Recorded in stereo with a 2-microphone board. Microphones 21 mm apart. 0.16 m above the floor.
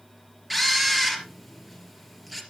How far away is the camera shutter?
About 3 m.